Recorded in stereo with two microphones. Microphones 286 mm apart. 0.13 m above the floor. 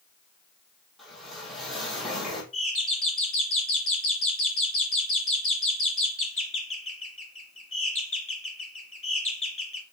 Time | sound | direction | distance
1.0 | a whoosh | centre (ahead or behind) | 2.5 m
2.5 | a doorbell | 45° left (ahead or behind) | 3 m